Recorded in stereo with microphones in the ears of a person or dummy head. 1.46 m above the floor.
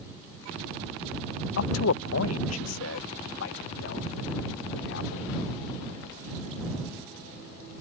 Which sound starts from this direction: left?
A man speaking, at 1.6 s.